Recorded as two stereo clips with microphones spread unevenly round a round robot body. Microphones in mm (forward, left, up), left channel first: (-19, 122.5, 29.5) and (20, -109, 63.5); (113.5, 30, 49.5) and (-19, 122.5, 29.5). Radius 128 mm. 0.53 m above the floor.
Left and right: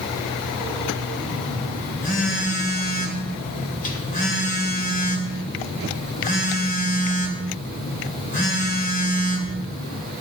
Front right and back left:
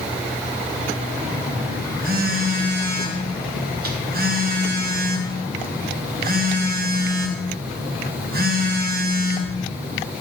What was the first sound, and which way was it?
A phone buzzing, 150° left.